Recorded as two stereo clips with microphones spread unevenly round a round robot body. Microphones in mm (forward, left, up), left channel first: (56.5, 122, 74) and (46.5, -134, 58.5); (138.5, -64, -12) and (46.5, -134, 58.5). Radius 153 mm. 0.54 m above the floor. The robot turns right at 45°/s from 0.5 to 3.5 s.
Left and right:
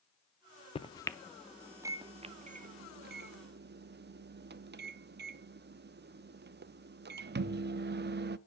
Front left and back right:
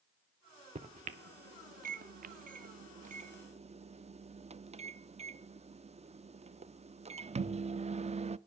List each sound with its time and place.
0.8 s a microwave: 150° left, 0.6 m; by 8.4 s 85° right, 0.6 m